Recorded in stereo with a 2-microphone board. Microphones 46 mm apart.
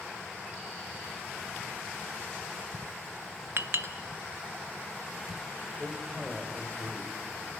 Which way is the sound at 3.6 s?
55° right (ahead or behind).